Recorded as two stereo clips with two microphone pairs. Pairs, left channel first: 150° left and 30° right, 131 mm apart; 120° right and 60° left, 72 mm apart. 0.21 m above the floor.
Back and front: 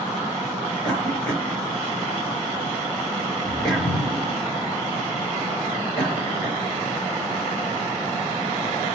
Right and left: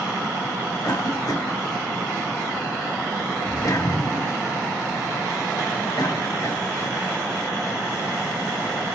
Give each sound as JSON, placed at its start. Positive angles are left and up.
{"t": 0.8, "sound": "a cough", "azimuth_deg": -130, "distance_m": 3.0}